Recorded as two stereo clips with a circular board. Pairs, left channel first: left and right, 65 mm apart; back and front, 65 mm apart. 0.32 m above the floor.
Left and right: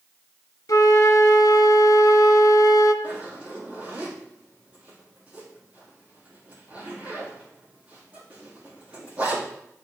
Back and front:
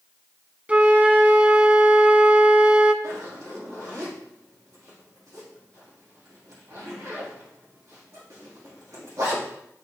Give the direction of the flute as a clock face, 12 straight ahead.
10 o'clock.